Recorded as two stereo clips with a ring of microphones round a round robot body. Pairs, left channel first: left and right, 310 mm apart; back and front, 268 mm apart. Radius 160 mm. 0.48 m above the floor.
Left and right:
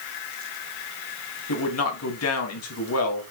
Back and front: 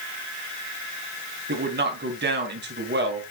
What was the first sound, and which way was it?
A man speaking, 50° left.